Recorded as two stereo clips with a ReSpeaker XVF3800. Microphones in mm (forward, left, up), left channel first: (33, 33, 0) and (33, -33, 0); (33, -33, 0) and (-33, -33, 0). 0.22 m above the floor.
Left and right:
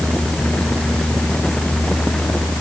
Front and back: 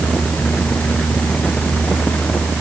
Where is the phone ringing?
No phone ringing in this recording.